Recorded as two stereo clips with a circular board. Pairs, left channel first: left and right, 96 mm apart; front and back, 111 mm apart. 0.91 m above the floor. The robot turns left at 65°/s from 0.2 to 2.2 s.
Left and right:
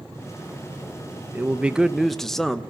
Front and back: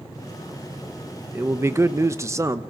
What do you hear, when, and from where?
1.3 s a man speaking: 130° right, 1.0 m; by 2.6 s 170° left, 1.0 m